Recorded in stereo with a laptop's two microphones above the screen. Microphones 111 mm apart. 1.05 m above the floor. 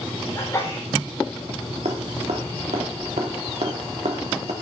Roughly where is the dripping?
Right.